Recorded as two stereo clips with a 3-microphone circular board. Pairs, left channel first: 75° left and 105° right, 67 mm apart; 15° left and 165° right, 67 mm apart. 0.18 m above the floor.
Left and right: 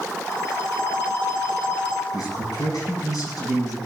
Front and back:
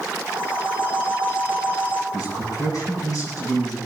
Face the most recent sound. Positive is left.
turn(degrees=55)